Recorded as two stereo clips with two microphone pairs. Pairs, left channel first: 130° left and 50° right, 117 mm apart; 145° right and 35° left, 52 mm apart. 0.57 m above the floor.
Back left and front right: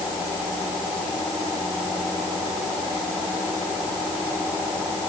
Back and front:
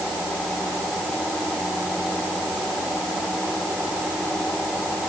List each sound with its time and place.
Only background noise.